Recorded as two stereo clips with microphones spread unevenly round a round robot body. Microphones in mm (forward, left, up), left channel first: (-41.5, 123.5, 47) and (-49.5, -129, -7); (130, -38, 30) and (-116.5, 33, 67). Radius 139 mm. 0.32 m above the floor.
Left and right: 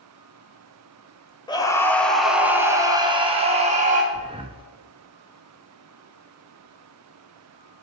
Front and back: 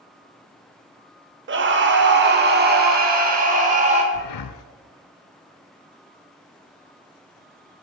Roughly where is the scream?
Behind.